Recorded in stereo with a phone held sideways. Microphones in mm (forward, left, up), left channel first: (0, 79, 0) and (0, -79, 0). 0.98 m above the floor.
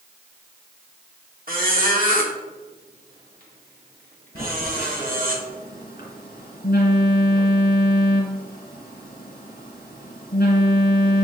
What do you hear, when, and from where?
1.5 s a squeak: 65° right (ahead or behind), 1.8 m
4.3 s a phone buzzing: 70° left (ahead or behind), 2.5 m